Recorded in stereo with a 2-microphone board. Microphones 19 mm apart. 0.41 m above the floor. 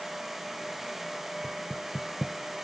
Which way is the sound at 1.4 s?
10° right (ahead or behind).